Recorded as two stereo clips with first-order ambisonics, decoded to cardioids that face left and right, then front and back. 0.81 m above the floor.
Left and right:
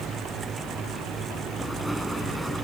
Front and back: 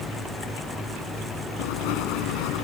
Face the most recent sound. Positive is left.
turn(degrees=0)